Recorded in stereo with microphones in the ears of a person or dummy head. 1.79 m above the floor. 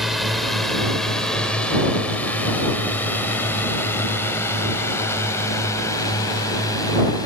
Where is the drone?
5° right (ahead or behind); by 7.3 s 15° left (ahead or behind).